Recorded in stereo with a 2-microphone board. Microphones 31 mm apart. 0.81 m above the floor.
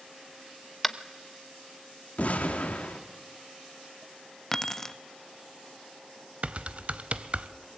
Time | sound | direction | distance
0.8 | tapping | 5° left (ahead or behind) | 0.9 m
2.2 | an explosion | 60° left (ahead or behind) | 2 m
4.5 | keys jangling | 20° left (ahead or behind) | 0.6 m
6.4 | typing on a keyboard | 45° right (ahead or behind) | 0.8 m